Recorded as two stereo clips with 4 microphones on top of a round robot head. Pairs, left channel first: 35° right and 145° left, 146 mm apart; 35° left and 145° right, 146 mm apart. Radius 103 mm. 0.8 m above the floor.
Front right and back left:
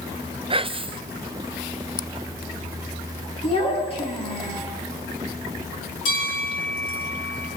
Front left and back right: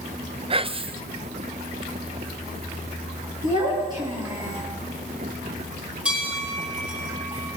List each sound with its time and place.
0.5 s whispering: straight behind, 0.7 m
3.4 s a child speaking: 85° right, 8 m
6.0 s a bell: 65° right, 9.5 m